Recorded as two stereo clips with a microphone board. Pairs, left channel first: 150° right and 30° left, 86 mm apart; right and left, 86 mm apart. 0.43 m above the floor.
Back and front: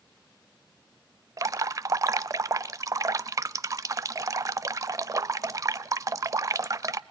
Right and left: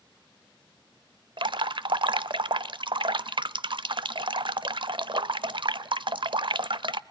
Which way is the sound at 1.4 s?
75° left.